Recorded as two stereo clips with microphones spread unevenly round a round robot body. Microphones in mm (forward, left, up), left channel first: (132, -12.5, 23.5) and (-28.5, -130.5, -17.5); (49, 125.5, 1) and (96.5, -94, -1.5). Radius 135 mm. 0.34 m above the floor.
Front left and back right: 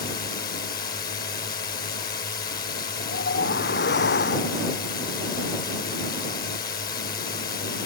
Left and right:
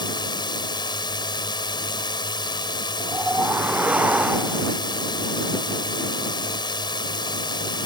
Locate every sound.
0.0 s a drone: 50° left
3.0 s a whoosh: 5° left